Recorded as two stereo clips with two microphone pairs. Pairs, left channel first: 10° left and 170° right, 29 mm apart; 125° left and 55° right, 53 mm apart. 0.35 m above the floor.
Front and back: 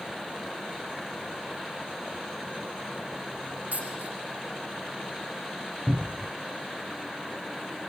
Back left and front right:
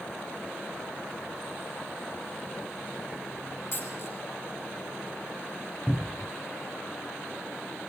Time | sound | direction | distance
3.7 | a dropped coin | 165° left | 4.5 m
5.9 | a cupboard door | 140° right | 0.7 m